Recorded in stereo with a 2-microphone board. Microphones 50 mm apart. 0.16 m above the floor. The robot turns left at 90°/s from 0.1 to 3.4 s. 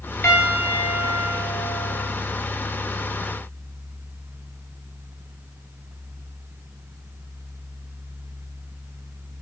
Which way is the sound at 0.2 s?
130° left.